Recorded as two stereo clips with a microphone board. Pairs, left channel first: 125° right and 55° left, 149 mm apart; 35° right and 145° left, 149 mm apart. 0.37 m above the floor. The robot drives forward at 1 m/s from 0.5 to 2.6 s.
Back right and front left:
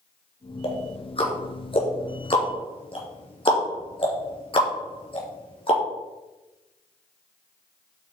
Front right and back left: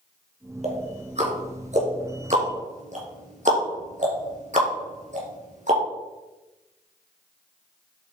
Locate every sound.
0.6 s ticking: 175° right, 2.5 m